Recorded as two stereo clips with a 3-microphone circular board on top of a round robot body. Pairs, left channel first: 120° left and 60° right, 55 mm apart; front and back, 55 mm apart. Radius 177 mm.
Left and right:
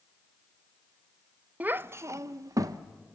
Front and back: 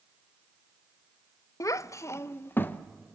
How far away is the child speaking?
About 0.6 m.